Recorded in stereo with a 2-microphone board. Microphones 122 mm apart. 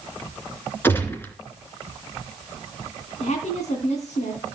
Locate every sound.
0.8 s a gunshot: 20° left (ahead or behind), 2.5 m
3.2 s a woman speaking: 70° left (ahead or behind), 3 m